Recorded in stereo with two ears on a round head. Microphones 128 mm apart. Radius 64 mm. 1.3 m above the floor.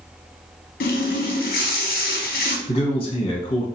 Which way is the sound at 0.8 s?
65° left (ahead or behind).